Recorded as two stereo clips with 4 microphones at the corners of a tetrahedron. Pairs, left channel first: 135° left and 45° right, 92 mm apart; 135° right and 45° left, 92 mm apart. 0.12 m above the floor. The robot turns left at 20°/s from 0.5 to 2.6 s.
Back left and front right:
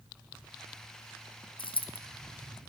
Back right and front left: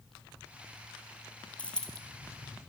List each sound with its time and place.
1.6 s a dropped coin: 150° left, 0.5 m; by 2.0 s 140° left, 0.5 m